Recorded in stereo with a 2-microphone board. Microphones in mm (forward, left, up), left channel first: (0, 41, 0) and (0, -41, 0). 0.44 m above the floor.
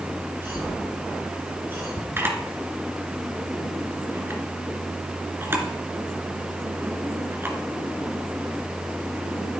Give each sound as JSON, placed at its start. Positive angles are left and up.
{"t": 0.4, "sound": "a cough", "side_deg": -30, "distance_m": 5.5}
{"t": 2.2, "sound": "a camera shutter", "side_deg": -25, "distance_m": 2.5}